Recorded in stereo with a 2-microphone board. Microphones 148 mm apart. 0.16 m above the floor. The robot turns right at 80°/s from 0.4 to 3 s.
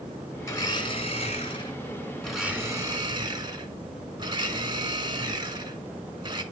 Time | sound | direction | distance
0.4 | a blender | 30° left | 1.6 m